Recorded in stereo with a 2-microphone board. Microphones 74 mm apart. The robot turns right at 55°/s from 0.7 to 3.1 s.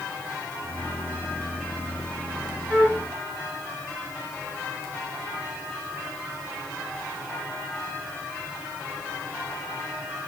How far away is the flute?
About 2.0 m.